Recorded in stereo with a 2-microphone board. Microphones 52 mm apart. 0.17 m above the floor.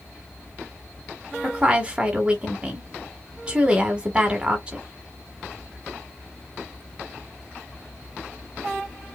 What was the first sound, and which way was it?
A woman speaking, 25° right (ahead or behind).